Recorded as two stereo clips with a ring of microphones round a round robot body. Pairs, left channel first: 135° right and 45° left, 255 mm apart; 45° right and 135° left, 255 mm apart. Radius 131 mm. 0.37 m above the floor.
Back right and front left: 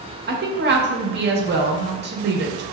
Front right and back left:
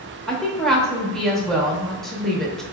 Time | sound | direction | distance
0.3 | a woman speaking | 40° left | 0.9 m